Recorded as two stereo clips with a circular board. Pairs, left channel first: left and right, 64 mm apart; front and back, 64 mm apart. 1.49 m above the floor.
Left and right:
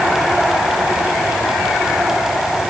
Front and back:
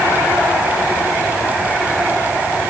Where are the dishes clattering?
No dishes clattering in this recording.